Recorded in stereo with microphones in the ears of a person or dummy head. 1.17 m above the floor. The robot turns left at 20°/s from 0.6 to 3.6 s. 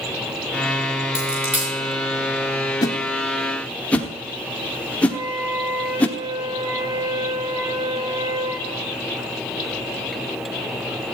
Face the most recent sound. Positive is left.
turn(degrees=-70)  # may be behind; listen again after turning